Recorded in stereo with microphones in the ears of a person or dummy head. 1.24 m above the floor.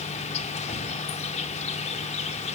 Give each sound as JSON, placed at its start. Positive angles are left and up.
{"t": 0.0, "sound": "an insect", "side_deg": 40, "distance_m": 1.7}